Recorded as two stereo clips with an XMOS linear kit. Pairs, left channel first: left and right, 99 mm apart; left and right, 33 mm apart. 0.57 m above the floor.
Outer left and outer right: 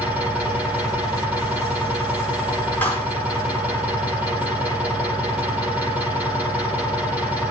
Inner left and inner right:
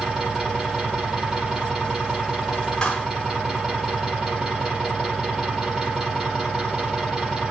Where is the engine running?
20° right (ahead or behind), 8.5 m.